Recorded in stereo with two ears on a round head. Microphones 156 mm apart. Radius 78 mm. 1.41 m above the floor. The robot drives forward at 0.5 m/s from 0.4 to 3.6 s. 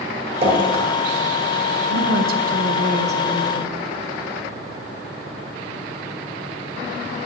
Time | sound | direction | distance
0.4 | dripping | 35° right (ahead or behind) | 2.5 m
1.9 | a woman speaking | 65° right (ahead or behind) | 0.9 m